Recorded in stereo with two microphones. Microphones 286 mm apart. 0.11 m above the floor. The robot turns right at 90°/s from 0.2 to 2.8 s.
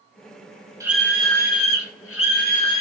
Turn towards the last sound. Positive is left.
turn(degrees=165)